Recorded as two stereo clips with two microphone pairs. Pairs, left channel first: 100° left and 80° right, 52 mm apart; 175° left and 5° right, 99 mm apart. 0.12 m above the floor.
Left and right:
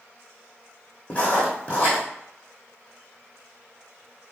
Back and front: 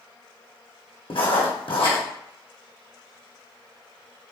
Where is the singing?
I don't hear singing.